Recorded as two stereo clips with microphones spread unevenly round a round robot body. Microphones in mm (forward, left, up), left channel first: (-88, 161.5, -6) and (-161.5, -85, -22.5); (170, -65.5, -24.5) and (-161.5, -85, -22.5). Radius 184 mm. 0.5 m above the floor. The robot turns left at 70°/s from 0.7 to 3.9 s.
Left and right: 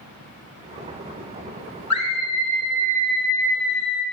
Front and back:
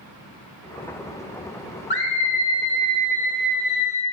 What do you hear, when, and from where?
1.9 s a scream: 65° left, 1.9 m; by 4.0 s 75° right, 1.9 m